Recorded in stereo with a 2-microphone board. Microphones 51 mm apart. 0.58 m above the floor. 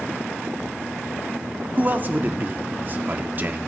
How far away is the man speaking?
About 0.8 m.